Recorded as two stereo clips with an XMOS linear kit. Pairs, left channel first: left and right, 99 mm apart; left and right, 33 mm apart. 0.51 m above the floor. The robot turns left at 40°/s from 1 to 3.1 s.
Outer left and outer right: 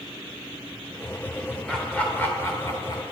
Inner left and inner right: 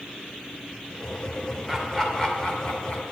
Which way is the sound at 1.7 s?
5° left (ahead or behind).